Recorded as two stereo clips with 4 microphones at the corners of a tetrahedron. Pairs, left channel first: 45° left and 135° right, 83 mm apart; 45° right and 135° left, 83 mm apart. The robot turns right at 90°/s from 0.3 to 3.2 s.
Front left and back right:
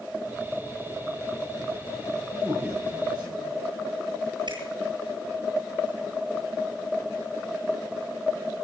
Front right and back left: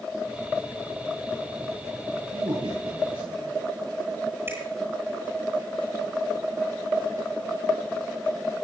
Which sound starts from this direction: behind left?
A man speaking, at 2.3 s.